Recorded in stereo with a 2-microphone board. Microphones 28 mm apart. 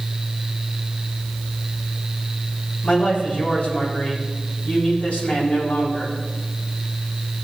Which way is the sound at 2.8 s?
50° left (ahead or behind).